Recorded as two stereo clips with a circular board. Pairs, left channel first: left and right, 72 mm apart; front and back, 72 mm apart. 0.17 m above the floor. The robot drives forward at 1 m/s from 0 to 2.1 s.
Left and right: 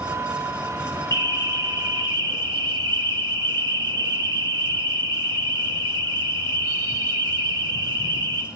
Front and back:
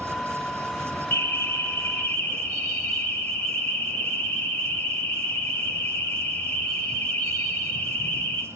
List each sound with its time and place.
1.1 s an alarm: 55° right, 5.5 m; by 8.4 s 65° right, 5 m